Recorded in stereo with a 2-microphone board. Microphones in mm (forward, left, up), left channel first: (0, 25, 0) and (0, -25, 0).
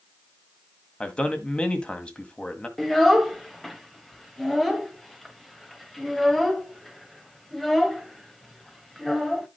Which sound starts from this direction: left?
A man speaking, at 1.0 s.